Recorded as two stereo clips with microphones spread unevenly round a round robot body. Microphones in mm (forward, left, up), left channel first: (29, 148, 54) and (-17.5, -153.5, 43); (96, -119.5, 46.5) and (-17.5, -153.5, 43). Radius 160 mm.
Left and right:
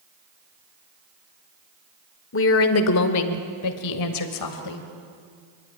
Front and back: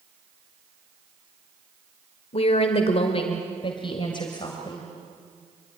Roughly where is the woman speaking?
Ahead left.